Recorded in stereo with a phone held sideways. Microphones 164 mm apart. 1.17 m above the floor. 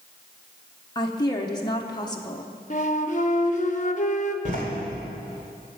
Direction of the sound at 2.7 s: 45° left (ahead or behind).